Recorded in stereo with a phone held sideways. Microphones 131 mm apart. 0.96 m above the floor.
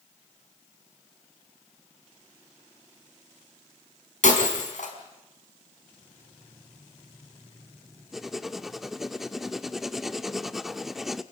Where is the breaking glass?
70° left (ahead or behind), 4.5 m.